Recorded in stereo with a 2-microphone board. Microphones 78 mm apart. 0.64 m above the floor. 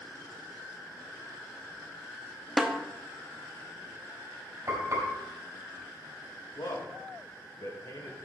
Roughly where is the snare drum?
Centre.